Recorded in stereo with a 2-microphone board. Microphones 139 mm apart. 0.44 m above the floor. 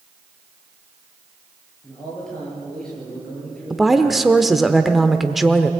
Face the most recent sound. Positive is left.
turn(degrees=0)  # may be behind; listen again after turning